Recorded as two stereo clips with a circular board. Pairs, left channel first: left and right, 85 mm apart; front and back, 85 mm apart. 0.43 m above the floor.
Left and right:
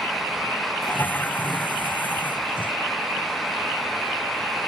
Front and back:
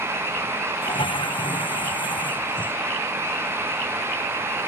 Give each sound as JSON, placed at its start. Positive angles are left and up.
{"t": 0.8, "sound": "a toilet flushing", "azimuth_deg": 20}